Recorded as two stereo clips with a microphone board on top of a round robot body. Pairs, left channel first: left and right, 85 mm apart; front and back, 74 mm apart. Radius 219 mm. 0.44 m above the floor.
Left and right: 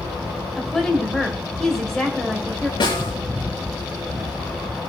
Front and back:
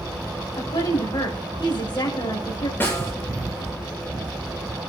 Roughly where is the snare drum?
Ahead left.